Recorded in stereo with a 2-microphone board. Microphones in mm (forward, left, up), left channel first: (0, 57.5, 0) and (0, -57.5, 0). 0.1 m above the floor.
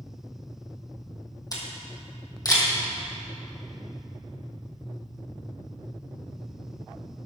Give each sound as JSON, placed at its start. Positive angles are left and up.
{"t": 1.5, "sound": "a camera shutter", "side_deg": 30, "distance_m": 2.5}